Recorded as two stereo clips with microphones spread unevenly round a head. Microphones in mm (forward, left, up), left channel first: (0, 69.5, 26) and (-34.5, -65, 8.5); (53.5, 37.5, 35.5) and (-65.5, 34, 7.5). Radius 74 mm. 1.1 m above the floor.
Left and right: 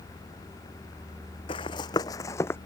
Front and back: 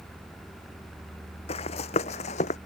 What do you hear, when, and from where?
1.5 s running footsteps: 25° left; by 2.6 s 5° left